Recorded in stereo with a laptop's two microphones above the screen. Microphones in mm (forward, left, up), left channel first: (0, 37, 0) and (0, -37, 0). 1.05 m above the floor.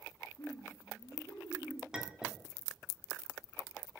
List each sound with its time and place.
0.4 s laughter: 55° left (ahead or behind), 1.2 m; by 1.8 s 70° left (ahead or behind), 1.8 m
1.9 s a clink: 10° right (ahead or behind), 1.1 m